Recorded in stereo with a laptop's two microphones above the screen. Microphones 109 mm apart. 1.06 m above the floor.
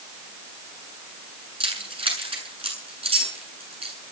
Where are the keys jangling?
60° right (ahead or behind), 8.5 m; by 4.0 s 70° right (ahead or behind), 8.5 m.